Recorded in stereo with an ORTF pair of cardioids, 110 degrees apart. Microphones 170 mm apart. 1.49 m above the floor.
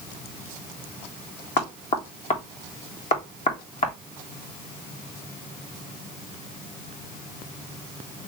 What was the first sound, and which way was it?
Knocking, 45° left.